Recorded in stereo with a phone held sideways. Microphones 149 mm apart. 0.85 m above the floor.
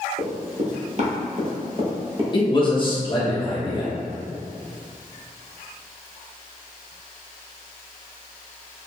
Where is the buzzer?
I don't hear a buzzer.